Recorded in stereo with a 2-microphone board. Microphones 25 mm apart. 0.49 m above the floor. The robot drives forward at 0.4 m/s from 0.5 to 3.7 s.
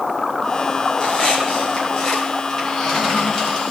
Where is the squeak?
25° left (ahead or behind), 3 m; by 3.7 s 20° left (ahead or behind), 4 m.